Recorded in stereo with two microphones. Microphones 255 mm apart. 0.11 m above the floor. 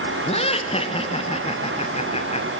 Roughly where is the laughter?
Left.